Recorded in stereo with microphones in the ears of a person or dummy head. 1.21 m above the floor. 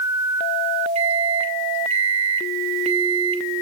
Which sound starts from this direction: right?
A microwave, at 0.9 s.